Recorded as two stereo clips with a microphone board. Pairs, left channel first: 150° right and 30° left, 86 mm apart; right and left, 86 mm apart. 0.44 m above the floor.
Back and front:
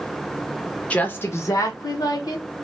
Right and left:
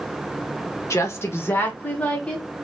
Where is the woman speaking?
90° right, 0.8 m; by 2.5 s 165° right, 1.3 m.